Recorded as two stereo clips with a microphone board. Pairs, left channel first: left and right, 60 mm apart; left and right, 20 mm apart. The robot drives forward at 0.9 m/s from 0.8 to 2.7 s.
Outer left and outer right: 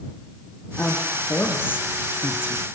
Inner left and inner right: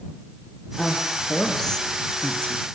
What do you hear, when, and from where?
0.8 s a woman speaking: 25° left (ahead or behind), 3 m; by 2.6 s 40° left (ahead or behind), 2 m